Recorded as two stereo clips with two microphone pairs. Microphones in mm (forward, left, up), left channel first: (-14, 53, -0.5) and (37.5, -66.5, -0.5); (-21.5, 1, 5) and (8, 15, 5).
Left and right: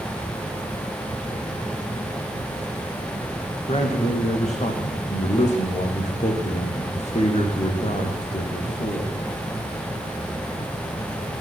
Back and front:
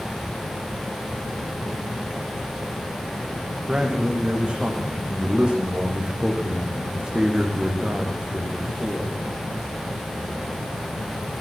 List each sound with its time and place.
3.7 s a man speaking: 85° left, 6 m